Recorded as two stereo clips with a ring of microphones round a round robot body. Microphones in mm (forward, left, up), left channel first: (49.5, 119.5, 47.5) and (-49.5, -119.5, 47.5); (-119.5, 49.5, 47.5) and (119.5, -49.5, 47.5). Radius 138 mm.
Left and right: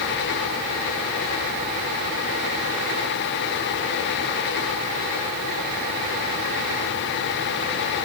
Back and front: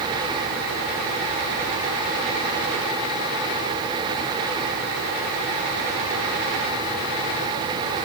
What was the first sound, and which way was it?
Only background noise.